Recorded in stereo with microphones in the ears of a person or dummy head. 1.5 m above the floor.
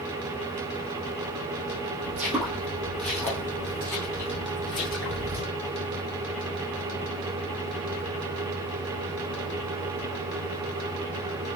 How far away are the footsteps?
About 1.8 m.